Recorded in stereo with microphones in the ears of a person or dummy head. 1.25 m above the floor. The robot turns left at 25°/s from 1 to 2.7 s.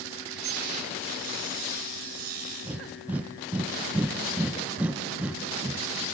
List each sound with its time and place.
0.3 s dripping: 60° right (ahead or behind), 5.5 m
2.6 s breathing: 10° right (ahead or behind), 0.9 m